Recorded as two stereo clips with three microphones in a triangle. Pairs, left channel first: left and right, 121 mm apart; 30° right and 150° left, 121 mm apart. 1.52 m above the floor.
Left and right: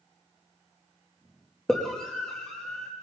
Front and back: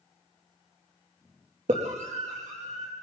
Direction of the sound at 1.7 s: 175° left.